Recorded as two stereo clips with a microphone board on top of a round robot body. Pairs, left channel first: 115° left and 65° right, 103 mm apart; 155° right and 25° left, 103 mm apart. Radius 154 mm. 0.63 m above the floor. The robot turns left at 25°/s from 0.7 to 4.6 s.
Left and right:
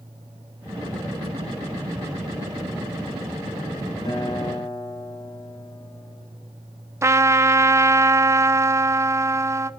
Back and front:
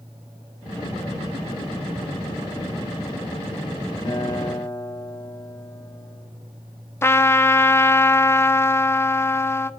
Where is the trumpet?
110° right, 0.7 m.